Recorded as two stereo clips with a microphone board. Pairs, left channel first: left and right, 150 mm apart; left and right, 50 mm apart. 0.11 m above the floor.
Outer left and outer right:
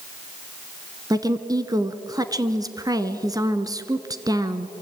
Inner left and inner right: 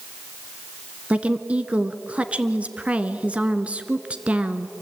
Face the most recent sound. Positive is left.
turn(degrees=-25)  # may be behind; listen again after turning